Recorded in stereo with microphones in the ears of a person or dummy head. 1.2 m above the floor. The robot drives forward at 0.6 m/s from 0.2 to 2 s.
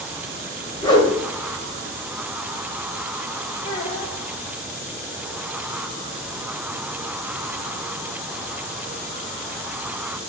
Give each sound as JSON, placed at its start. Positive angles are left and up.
{"t": 0.8, "sound": "a whoosh", "side_deg": 25, "distance_m": 1.6}
{"t": 3.6, "sound": "a child speaking", "side_deg": 40, "distance_m": 3.0}